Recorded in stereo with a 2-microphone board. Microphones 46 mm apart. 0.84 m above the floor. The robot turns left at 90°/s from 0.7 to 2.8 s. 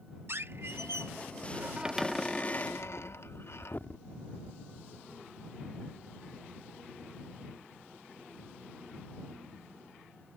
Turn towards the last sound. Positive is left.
turn(degrees=50)  # may be behind; listen again after turning